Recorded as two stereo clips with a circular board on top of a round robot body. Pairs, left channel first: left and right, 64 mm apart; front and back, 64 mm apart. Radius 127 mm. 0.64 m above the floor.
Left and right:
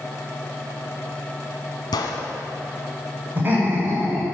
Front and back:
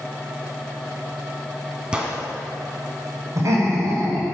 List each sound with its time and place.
1.9 s a gunshot: 100° left, 1.1 m
3.4 s laughter: 145° right, 5 m